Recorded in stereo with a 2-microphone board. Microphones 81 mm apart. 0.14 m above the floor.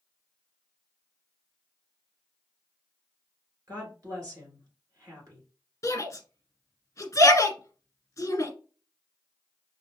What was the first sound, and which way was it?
A woman speaking, 45° right (ahead or behind).